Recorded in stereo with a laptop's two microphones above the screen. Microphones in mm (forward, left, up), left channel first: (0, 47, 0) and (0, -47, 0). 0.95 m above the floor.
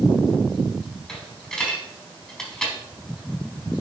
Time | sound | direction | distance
1.1 | a dropped coin | 10° left (ahead or behind) | 4 m